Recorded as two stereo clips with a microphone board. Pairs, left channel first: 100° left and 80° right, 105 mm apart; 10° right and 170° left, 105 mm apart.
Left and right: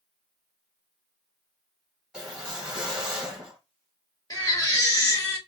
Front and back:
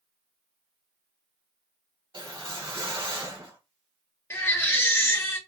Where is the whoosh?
160° right, 1.2 m.